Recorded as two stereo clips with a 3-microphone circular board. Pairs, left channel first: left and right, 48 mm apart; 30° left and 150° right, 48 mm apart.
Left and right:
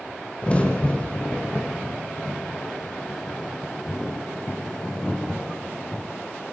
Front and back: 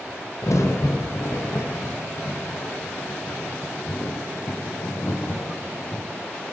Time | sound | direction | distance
0.4 | a crack | 25° left | 4.5 m